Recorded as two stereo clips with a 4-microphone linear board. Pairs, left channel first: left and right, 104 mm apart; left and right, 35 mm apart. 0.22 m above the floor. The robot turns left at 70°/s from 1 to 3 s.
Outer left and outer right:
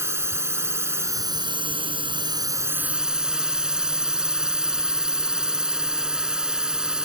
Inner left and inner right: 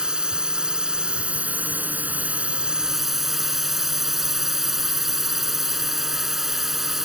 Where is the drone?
30° right; by 7.1 s 170° right.